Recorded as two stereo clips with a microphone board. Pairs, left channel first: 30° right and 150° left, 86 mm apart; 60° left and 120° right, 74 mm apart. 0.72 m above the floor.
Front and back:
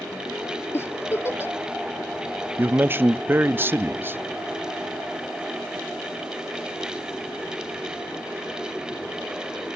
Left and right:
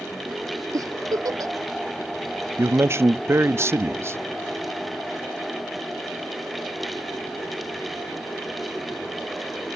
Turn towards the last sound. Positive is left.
turn(degrees=-155)